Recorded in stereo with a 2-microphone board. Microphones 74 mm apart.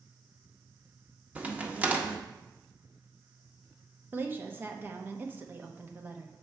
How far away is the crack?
About 0.6 m.